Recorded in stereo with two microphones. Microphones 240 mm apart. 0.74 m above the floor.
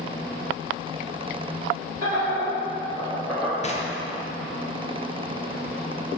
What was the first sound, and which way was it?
Laughter, 40° right (ahead or behind).